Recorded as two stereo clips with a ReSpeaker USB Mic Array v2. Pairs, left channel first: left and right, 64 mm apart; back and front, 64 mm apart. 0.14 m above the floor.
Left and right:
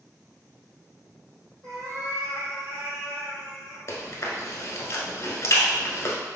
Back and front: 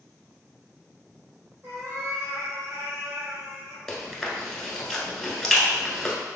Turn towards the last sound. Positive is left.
turn(degrees=100)